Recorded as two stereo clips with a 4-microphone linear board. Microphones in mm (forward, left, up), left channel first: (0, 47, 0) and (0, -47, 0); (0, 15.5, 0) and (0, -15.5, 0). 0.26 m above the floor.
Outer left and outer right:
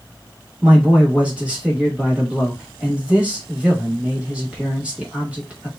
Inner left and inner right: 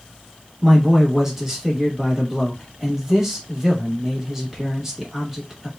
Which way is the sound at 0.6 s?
10° right (ahead or behind).